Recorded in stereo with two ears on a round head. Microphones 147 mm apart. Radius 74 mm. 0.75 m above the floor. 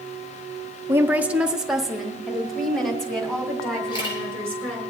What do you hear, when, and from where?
0.9 s a woman speaking: 15° right (ahead or behind), 0.5 m; by 4.9 s 5° left (ahead or behind), 3 m
3.9 s a camera shutter: 30° left (ahead or behind), 3.5 m